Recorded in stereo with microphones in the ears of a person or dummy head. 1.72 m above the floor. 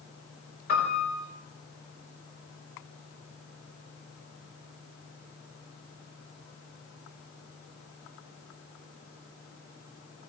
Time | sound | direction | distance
0.7 | a piano | 50° left (ahead or behind) | 4.5 m